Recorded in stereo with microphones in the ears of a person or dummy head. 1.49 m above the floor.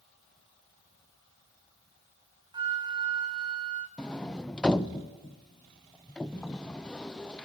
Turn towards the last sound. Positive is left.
turn(degrees=5)  # may be behind; listen again after turning